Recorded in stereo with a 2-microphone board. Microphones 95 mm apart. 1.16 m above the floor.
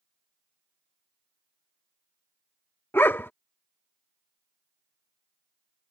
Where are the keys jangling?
No keys jangling in this recording.